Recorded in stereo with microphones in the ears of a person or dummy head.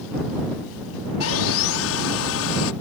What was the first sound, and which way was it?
Sawing, 75° left (ahead or behind).